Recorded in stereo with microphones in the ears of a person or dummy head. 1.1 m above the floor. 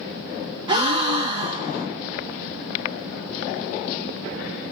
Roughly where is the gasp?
Right.